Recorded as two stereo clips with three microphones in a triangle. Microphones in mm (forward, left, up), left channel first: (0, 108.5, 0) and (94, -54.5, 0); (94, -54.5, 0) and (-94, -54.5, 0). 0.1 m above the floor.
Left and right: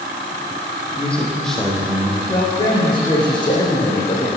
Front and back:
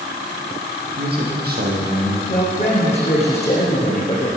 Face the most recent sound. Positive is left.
turn(degrees=55)